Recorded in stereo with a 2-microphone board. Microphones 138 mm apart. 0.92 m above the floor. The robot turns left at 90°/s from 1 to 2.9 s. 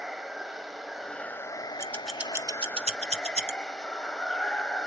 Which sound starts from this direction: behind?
Running water, at 0.0 s.